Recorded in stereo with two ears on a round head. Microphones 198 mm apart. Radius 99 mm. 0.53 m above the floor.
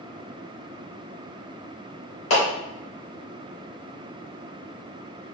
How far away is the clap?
About 1.8 m.